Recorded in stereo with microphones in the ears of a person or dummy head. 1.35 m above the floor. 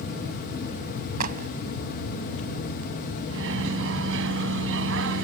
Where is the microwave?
75° right (ahead or behind).